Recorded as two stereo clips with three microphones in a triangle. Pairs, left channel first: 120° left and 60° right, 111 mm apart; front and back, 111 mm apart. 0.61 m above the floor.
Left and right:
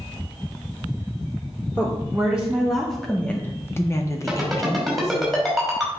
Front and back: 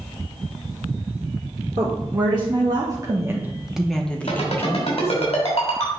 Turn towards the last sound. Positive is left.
turn(degrees=30)